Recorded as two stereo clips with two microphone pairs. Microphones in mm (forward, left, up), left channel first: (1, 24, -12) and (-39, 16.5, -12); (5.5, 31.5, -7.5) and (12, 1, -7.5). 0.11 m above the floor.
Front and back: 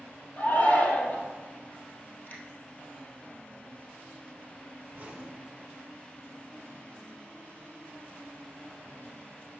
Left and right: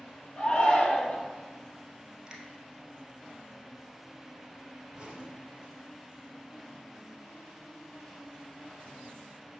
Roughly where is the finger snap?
Ahead.